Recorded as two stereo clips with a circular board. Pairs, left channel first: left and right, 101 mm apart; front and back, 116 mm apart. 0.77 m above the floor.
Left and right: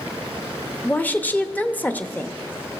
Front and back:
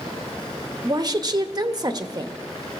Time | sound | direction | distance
0.8 | a woman speaking | 150° left | 1.0 m